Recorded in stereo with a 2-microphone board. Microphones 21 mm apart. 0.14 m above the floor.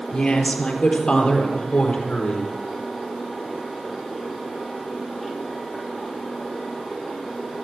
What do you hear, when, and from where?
0.1 s a woman speaking: 40° left (ahead or behind), 3 m; by 2.5 s 45° left (ahead or behind), 5 m